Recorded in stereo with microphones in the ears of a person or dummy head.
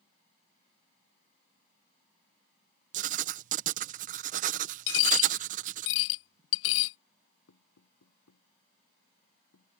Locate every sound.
2.9 s writing: 40° right (ahead or behind)
4.9 s a dropped coin: 65° left (ahead or behind)
7.5 s knocking: 85° left